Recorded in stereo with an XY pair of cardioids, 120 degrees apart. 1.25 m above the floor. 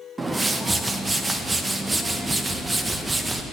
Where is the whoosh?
20° right, 0.9 m.